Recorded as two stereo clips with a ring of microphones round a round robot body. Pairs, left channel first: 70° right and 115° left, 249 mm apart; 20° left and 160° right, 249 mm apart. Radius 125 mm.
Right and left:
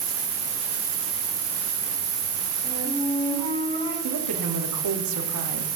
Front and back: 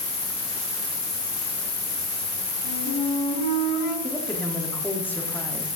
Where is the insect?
85° left, 3 m.